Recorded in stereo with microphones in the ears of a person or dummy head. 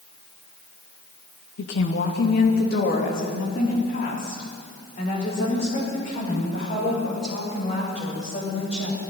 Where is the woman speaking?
70° left (ahead or behind), 1.6 m; by 9.0 s 40° left (ahead or behind), 9 m.